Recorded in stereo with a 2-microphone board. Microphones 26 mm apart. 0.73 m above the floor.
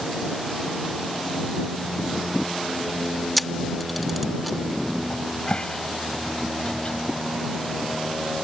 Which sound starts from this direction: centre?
A camera shutter, at 3.4 s.